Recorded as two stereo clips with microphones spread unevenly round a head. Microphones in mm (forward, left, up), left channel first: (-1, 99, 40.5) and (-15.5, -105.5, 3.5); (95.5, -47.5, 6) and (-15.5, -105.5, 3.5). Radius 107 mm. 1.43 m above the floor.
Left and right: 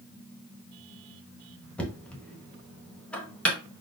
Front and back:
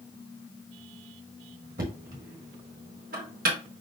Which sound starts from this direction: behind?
Knocking, at 1.8 s.